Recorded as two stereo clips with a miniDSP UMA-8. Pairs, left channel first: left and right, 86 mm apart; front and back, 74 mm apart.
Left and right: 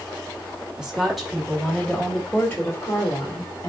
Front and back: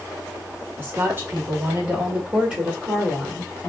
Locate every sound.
0.8 s a woman speaking: 165° right, 1.2 m; by 3.7 s 90° left, 1.5 m